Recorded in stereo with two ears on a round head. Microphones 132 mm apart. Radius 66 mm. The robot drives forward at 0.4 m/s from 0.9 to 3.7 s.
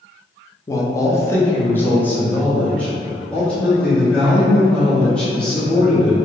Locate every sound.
0.7 s a man speaking: 20° left (ahead or behind), 0.6 m; by 6.2 s 10° left (ahead or behind), 1.7 m